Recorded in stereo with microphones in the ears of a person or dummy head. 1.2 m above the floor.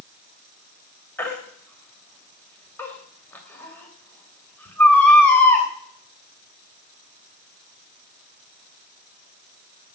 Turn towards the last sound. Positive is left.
turn(degrees=10)  # may be behind; listen again after turning